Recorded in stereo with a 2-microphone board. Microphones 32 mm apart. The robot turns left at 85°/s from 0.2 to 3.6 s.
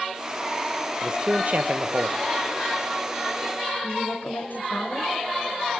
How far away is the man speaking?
About 1.0 m.